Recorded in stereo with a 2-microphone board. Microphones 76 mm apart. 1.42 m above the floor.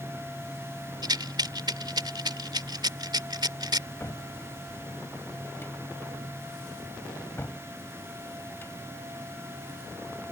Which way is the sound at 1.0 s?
65° right (ahead or behind).